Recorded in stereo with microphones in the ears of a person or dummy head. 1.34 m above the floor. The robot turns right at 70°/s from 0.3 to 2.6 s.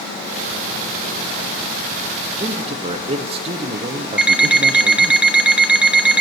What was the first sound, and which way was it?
A man speaking, 15° right (ahead or behind).